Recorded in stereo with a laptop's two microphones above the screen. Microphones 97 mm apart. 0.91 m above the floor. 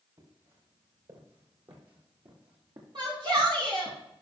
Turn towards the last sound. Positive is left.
turn(degrees=-55)  # may be behind; listen again after turning